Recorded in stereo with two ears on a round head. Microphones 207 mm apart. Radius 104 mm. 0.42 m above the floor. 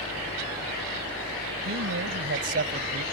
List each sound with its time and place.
1.6 s a man speaking: 60° right (ahead or behind); by 3.0 s 40° right (ahead or behind)